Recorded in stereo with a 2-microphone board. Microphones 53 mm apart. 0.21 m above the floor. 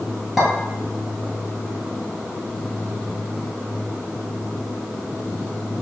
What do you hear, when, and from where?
0.4 s a clink: 5° right (ahead or behind), 1.7 m